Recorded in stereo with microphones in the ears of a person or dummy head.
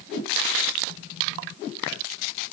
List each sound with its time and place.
Only background noise.